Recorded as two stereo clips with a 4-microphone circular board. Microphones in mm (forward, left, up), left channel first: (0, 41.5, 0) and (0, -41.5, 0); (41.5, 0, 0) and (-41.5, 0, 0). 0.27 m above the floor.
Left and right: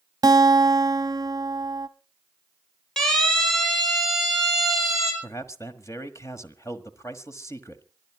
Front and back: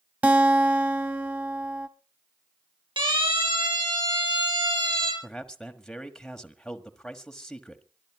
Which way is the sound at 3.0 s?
175° left.